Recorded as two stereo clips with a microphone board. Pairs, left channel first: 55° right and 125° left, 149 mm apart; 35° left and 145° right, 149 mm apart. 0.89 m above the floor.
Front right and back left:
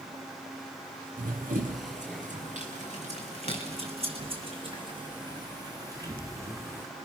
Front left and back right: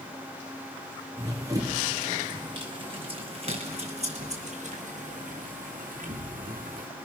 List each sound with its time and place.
1.2 s running footsteps: 145° left, 4 m; by 6.9 s 160° right, 4 m